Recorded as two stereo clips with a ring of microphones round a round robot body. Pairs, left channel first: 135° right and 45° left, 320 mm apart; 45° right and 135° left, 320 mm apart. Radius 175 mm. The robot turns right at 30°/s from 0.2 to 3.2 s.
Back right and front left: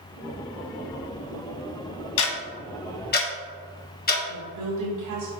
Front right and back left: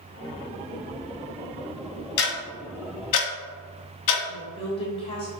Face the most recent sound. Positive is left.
turn(degrees=25)